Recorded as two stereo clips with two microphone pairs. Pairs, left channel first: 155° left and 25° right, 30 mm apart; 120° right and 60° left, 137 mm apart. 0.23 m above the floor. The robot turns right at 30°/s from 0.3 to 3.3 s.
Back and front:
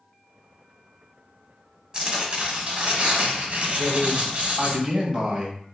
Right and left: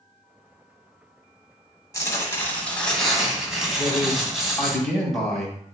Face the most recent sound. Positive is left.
turn(degrees=-35)